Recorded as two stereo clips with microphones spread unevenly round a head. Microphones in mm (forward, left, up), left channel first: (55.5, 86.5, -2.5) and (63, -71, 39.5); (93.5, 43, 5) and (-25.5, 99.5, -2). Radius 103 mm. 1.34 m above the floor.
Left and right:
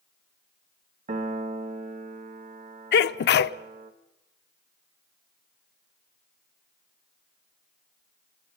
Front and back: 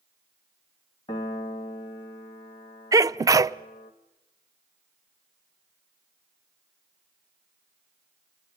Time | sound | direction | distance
1.1 | a piano | 85° right | 0.9 m
2.9 | a sneeze | 90° left | 0.6 m